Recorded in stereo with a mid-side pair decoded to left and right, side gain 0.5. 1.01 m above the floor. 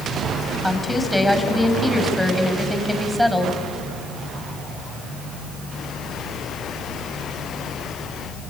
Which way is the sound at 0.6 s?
5° left.